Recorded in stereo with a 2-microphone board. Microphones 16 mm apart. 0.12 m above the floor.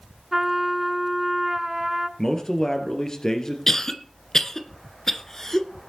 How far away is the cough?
About 1.5 m.